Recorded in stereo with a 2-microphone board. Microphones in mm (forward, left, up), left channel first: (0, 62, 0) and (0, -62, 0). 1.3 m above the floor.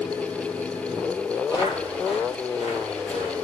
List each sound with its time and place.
1.5 s footsteps: 35° left (ahead or behind), 2.0 m; by 3.3 s 60° left (ahead or behind), 3 m